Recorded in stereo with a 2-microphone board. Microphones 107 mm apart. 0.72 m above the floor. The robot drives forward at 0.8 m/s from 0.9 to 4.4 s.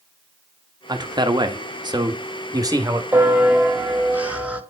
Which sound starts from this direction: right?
A man speaking, at 0.9 s.